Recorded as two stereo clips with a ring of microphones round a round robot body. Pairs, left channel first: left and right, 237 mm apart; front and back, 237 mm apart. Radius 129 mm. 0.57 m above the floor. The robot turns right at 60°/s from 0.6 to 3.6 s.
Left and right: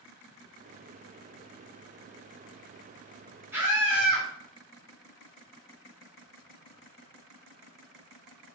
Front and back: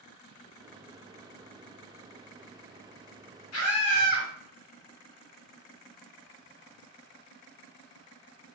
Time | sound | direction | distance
3.5 | a scream | 10° right | 1.5 m